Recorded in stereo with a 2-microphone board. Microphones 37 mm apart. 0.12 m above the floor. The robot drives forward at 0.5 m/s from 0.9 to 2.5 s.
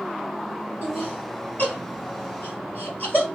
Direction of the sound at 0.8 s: 55° left (ahead or behind).